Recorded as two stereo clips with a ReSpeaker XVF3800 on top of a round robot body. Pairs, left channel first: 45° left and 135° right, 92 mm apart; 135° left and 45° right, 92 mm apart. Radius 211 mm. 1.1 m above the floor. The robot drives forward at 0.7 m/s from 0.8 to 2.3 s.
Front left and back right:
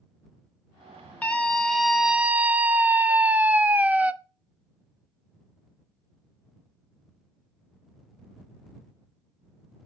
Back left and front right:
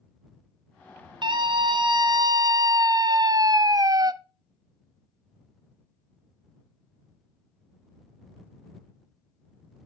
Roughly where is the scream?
Ahead right.